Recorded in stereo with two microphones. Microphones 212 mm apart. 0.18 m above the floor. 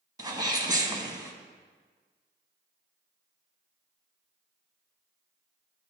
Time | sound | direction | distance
0.2 | a sneeze | 20° right (ahead or behind) | 1.0 m